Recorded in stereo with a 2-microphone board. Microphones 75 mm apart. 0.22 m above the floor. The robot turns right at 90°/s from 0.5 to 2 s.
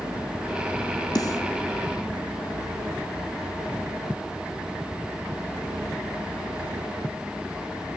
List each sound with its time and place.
1.1 s a snare drum: 60° left (ahead or behind), 1.5 m; by 1.4 s 45° left (ahead or behind), 1.5 m